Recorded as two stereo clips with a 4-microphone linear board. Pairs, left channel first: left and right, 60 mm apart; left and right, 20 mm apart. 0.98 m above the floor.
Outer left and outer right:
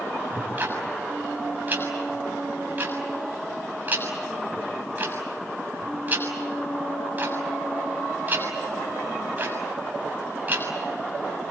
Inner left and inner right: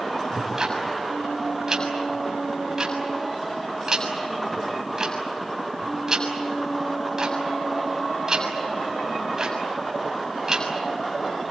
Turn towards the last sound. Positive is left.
turn(degrees=-30)  # may be behind; listen again after turning